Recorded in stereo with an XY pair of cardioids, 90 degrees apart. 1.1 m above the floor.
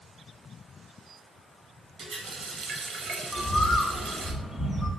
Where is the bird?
40° left, 0.9 m.